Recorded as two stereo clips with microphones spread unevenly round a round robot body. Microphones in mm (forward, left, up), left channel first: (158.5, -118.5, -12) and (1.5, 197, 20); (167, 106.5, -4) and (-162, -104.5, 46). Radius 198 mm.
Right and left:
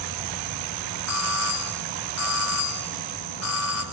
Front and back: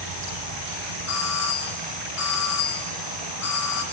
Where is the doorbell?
15° right, 5 m.